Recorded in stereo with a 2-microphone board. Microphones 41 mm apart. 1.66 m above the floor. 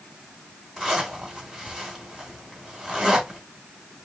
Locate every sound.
0.8 s a zipper: 5° right (ahead or behind), 2.5 m